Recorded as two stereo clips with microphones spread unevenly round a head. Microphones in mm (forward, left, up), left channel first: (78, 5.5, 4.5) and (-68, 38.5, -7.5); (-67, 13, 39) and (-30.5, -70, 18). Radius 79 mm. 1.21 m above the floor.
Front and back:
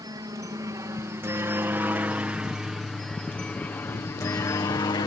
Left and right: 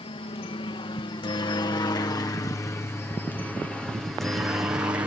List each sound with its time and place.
0.0 s a helicopter: 105° left; by 5.1 s 45° right